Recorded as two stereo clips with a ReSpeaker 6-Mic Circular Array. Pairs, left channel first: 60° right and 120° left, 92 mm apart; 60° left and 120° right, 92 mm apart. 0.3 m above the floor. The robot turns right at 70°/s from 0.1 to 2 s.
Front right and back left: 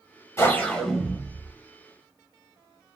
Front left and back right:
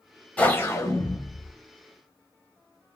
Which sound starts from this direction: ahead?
A whoosh, at 0.4 s.